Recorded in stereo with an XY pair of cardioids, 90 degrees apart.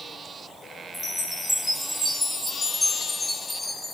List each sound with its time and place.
0.9 s a chime: 20° left, 1.0 m